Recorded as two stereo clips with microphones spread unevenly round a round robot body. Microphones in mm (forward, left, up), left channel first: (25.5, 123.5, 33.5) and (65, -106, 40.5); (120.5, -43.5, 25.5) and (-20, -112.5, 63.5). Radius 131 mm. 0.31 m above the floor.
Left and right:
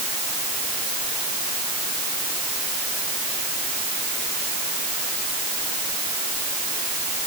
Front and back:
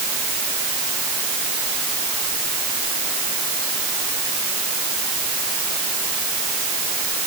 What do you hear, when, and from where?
Only background noise.